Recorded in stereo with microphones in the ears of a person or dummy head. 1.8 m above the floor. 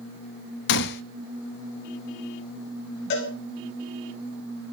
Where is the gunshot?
60° left (ahead or behind), 0.5 m.